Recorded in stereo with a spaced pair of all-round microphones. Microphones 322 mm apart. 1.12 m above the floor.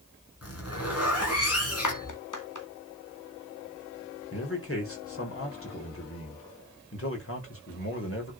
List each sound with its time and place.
0.4 s a zipper: 45° left (ahead or behind), 5.5 m
1.8 s a clap: 65° left (ahead or behind), 2 m
4.3 s a man speaking: 40° left (ahead or behind), 5 m